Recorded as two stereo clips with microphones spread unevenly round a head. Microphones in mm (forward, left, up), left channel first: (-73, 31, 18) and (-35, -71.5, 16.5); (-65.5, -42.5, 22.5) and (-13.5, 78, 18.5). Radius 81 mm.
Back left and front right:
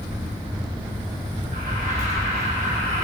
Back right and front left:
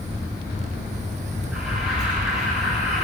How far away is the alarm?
About 9 m.